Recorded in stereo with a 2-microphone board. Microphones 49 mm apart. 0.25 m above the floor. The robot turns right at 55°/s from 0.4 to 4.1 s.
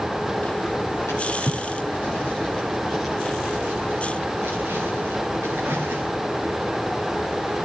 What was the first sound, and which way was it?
A drawer, 75° left (ahead or behind).